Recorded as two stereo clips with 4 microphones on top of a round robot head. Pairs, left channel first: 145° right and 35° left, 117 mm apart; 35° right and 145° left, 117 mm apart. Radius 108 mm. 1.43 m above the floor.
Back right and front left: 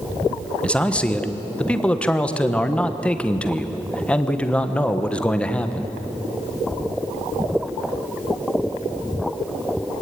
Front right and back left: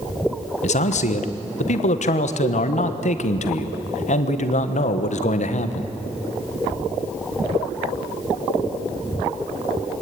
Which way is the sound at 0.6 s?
60° right.